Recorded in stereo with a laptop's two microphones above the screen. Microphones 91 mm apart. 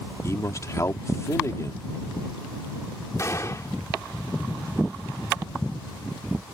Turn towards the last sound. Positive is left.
turn(degrees=35)  # may be behind; listen again after turning